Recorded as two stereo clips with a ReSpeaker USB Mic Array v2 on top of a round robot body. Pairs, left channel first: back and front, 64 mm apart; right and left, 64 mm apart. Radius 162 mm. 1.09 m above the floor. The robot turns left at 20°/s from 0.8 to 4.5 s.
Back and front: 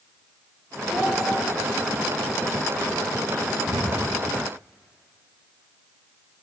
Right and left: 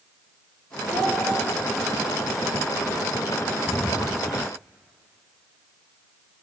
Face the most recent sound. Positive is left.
turn(degrees=-30)